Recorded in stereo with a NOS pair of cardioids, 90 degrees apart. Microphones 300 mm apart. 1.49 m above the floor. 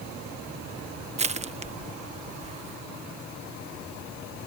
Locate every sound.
1.2 s crushing: 20° right